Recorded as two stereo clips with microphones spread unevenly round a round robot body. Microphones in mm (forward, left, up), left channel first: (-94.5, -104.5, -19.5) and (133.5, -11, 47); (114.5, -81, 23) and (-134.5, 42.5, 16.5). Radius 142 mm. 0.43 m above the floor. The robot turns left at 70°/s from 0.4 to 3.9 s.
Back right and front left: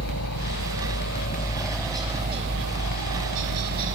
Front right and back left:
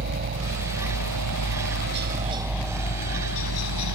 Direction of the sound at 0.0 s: 155° right.